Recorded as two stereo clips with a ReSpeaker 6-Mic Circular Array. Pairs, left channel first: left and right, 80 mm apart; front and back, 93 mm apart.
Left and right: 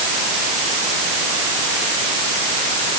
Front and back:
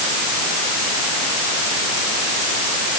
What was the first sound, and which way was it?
Only background noise.